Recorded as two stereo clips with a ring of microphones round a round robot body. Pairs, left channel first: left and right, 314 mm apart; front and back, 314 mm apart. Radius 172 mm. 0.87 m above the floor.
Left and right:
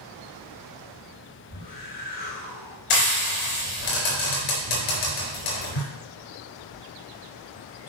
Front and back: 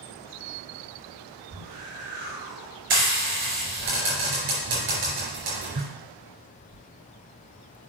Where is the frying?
120° left, 3.5 m.